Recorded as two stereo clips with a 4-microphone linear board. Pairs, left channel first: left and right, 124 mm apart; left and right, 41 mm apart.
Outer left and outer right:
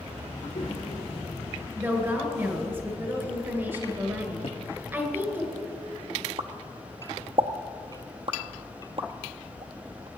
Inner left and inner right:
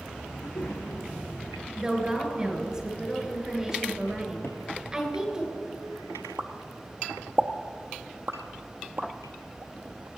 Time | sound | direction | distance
0.3 | a child speaking | 65° left (ahead or behind) | 3 m
1.8 | a woman speaking | 20° right (ahead or behind) | 1.8 m
4.4 | a cupboard door | 55° left (ahead or behind) | 0.7 m
6.4 | a pop | 50° right (ahead or behind) | 0.6 m